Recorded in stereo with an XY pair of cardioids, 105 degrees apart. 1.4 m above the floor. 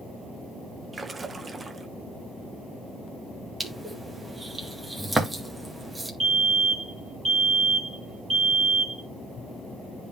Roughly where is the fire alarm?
Ahead right.